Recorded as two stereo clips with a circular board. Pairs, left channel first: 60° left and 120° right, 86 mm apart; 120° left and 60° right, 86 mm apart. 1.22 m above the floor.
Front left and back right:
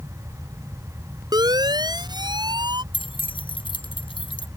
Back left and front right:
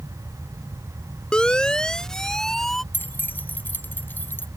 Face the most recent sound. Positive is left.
turn(degrees=55)